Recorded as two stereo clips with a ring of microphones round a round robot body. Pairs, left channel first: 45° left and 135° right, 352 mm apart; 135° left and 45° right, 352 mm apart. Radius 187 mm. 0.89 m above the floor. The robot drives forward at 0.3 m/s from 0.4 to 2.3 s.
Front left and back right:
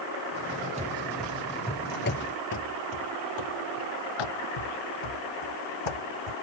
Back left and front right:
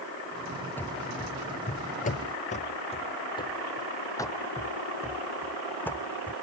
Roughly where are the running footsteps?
Behind right.